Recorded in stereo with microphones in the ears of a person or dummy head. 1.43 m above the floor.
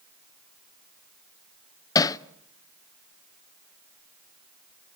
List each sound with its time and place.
1.9 s hammering: 25° left (ahead or behind), 0.6 m